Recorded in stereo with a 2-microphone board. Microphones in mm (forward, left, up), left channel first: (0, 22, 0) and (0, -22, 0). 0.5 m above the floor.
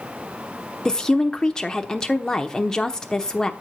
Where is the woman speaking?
15° left (ahead or behind), 1.0 m.